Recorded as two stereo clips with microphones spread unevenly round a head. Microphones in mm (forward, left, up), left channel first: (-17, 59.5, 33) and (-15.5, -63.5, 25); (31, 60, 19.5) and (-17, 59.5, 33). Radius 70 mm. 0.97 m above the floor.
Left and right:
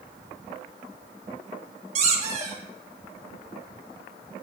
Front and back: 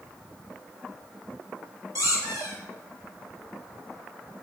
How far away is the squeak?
About 6.5 m.